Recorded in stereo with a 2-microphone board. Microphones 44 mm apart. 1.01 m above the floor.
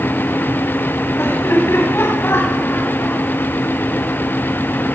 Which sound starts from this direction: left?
Laughter, at 1.2 s.